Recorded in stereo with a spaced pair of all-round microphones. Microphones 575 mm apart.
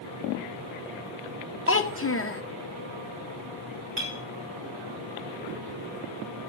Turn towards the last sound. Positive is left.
turn(degrees=-45)  # may be behind; listen again after turning